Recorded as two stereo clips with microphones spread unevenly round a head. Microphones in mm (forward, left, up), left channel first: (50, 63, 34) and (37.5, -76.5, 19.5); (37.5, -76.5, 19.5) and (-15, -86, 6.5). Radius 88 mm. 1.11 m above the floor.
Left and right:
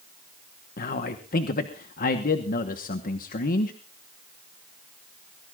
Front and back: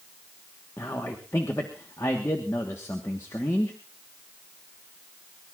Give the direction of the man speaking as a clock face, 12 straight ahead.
10 o'clock.